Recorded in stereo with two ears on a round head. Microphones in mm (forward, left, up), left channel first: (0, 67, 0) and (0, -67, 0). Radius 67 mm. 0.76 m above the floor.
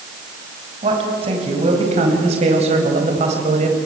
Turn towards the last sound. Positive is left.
turn(degrees=-50)  # may be behind; listen again after turning